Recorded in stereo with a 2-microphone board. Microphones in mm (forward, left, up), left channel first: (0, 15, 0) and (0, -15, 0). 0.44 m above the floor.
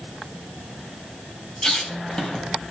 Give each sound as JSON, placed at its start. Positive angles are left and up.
{"t": 1.6, "sound": "a squeak", "side_deg": 20, "distance_m": 2.0}